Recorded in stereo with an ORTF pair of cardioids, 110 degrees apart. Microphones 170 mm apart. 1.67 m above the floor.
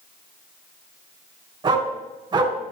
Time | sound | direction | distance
1.6 | a dog barking | 30° right | 4.5 m